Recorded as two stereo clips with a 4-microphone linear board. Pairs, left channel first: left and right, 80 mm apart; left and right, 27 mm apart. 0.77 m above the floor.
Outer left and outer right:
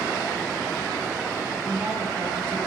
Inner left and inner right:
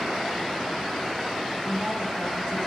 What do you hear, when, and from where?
1.6 s a woman speaking: 30° right (ahead or behind), 4.5 m